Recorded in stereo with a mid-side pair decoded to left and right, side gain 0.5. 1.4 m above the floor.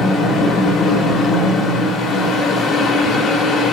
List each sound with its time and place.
0.0 s a fan: 55° left, 0.9 m